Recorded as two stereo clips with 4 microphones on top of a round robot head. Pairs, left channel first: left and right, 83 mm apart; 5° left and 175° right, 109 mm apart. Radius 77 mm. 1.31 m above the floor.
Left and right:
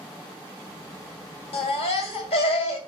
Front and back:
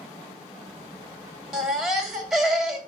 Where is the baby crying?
95° left, 2 m.